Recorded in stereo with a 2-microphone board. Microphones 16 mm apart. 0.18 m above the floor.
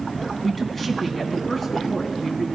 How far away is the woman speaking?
About 1.9 m.